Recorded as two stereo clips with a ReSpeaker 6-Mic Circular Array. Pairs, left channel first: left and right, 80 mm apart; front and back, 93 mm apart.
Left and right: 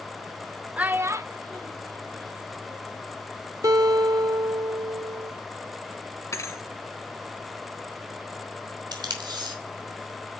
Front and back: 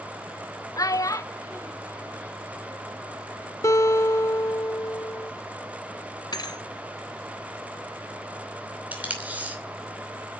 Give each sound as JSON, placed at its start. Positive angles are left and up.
{"t": 0.8, "sound": "a child speaking", "azimuth_deg": -20, "distance_m": 0.6}
{"t": 3.6, "sound": "a guitar", "azimuth_deg": -50, "distance_m": 1.5}
{"t": 6.3, "sound": "a thud", "azimuth_deg": 40, "distance_m": 1.5}
{"t": 8.9, "sound": "tape being pulled", "azimuth_deg": -110, "distance_m": 2.5}